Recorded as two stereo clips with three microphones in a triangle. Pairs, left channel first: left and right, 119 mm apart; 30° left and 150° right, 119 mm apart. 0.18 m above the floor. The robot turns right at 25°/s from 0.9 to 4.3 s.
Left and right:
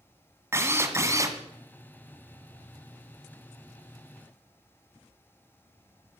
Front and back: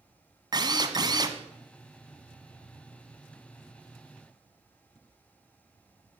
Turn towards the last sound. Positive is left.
turn(degrees=-55)